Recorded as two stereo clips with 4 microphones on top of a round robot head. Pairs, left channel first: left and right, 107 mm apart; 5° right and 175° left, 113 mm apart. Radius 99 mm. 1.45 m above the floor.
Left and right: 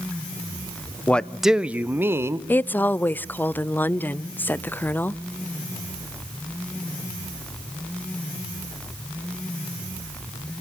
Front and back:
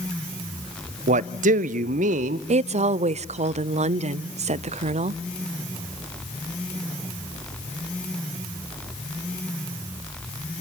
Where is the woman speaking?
165° left, 0.5 m.